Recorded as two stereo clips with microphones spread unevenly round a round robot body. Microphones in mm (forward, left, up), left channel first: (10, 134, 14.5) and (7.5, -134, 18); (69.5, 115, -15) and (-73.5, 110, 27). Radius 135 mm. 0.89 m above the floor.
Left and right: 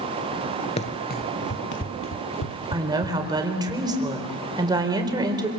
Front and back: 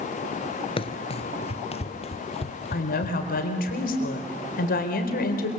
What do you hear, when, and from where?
0.8 s running footsteps: 45° left, 0.9 m; by 3.7 s 55° left, 2.5 m
2.7 s a woman speaking: 15° right, 4 m